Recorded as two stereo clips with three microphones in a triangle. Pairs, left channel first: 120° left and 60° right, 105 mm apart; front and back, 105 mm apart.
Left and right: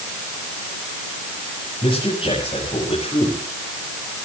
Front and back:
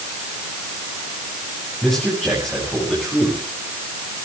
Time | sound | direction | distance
1.8 | a man speaking | 90° left | 7.5 m